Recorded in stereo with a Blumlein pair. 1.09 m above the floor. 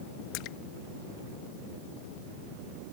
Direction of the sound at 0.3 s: 40° left.